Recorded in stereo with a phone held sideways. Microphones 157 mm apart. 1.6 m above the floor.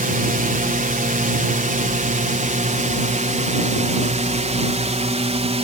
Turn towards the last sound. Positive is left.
turn(degrees=-45)  # may be behind; listen again after turning